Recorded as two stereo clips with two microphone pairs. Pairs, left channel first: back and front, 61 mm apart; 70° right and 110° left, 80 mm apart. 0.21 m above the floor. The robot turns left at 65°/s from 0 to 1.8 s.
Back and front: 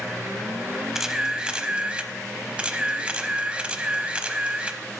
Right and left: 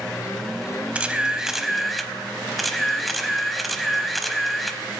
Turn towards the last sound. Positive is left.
turn(degrees=15)